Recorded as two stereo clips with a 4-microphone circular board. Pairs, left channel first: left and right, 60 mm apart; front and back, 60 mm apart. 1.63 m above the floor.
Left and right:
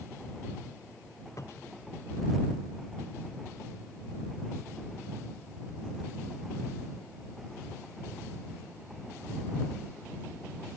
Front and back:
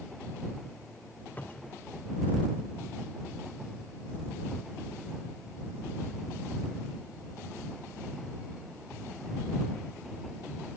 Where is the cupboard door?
60° left.